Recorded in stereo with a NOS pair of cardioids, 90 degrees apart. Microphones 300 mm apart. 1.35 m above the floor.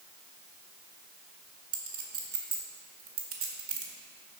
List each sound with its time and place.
1.7 s a clink: 50° right, 1.7 m